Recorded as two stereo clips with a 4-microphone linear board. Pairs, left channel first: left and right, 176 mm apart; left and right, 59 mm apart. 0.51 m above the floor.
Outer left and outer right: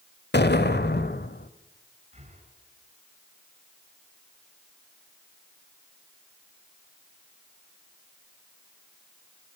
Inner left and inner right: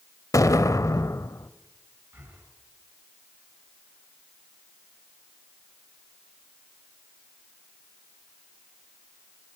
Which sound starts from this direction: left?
An explosion, at 0.3 s.